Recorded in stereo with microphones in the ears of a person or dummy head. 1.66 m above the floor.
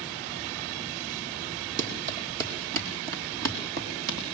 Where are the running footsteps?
45° right (ahead or behind), 4 m; by 4.2 s 60° right (ahead or behind), 5 m.